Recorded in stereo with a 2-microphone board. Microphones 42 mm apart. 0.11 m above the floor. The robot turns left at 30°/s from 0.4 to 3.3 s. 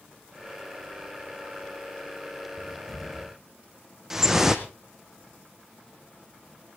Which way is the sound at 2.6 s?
5° left (ahead or behind).